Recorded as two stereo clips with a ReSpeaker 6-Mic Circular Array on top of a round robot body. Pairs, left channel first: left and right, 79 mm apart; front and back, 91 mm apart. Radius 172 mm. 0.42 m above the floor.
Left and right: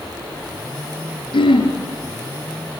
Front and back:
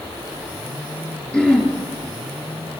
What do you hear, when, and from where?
1.3 s throat clearing: 80° left, 5.5 m